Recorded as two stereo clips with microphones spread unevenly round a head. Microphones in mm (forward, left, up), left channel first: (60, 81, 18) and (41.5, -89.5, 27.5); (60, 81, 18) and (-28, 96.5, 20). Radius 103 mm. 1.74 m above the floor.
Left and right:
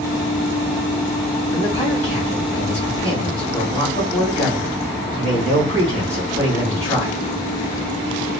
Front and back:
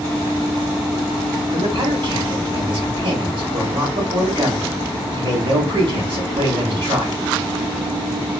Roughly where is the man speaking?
Behind left.